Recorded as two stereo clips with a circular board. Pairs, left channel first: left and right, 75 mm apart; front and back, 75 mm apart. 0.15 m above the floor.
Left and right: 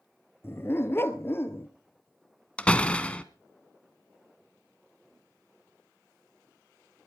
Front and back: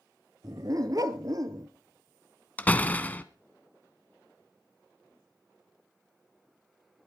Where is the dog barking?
145° left, 1.2 m.